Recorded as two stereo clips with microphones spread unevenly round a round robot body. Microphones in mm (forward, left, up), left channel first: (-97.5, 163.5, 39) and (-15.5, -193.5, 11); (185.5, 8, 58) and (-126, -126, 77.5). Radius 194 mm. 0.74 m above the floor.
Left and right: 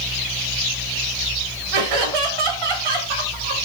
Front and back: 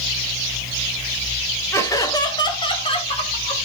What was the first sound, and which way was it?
Laughter, 60° right.